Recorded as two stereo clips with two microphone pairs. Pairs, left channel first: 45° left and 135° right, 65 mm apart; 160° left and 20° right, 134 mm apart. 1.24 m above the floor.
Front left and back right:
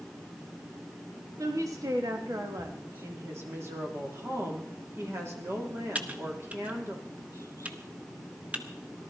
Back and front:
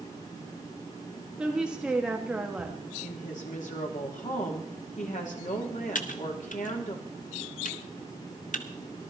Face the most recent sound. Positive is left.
turn(degrees=160)